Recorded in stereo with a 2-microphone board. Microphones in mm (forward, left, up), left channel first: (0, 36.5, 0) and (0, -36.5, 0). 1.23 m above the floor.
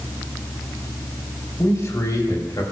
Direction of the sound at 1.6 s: 45° left (ahead or behind).